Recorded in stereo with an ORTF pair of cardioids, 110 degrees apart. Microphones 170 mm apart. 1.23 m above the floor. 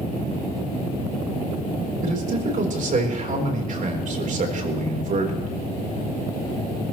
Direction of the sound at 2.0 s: 50° right.